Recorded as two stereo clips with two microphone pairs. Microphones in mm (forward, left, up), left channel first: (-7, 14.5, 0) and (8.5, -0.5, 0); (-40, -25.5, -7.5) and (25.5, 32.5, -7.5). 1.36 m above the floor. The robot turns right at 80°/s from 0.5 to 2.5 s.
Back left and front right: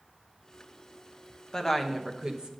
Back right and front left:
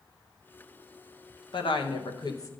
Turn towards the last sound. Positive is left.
turn(degrees=-85)